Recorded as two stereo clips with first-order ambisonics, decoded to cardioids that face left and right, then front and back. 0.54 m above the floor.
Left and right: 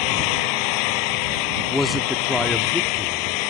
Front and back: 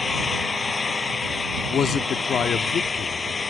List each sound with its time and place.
0.0 s an engine running: 75° left
1.7 s a man speaking: 5° left